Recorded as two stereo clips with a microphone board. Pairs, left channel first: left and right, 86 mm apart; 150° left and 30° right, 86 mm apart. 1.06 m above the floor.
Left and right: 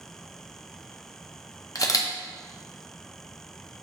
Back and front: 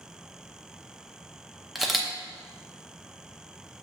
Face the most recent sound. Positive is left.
turn(degrees=55)